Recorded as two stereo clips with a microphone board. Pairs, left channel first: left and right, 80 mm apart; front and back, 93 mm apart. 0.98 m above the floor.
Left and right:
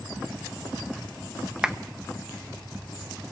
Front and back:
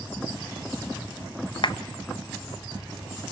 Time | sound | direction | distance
1.6 | a clap | 10° right | 0.8 m